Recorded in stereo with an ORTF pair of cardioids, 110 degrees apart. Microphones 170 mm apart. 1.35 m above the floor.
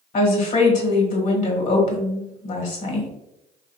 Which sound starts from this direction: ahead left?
A woman speaking, at 0.1 s.